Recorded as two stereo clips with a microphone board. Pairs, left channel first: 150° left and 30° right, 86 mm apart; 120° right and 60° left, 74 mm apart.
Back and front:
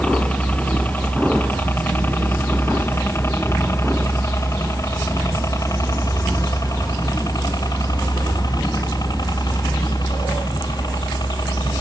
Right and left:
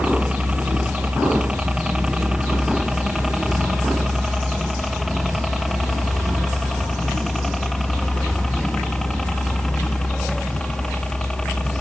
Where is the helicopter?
105° left; by 11.8 s 160° left.